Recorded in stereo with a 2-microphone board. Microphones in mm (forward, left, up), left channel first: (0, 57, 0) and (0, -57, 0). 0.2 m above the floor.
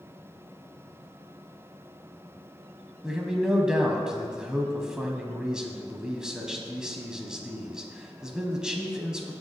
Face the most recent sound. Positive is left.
turn(degrees=-5)  # may be behind; listen again after turning